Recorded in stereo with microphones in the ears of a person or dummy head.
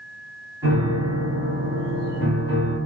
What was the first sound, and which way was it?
A piano, 20° right (ahead or behind).